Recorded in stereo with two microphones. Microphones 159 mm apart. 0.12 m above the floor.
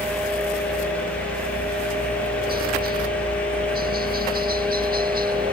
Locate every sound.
0.0 s a helicopter: 65° right (ahead or behind); by 5.5 s 60° right (ahead or behind)